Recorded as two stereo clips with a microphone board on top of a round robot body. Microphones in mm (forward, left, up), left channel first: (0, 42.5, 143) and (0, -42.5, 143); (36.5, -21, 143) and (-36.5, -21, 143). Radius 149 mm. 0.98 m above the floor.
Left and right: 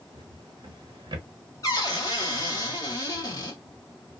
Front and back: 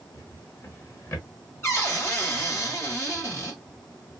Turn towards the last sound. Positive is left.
turn(degrees=50)